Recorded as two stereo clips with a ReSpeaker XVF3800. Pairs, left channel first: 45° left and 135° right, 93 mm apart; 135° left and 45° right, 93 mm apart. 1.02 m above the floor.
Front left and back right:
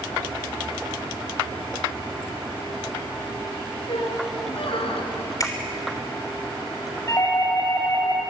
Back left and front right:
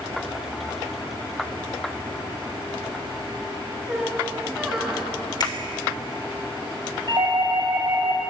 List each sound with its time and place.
3.9 s a squeak: 40° left, 4 m
5.4 s a finger snap: 95° left, 3.5 m
7.1 s a doorbell: 10° right, 6 m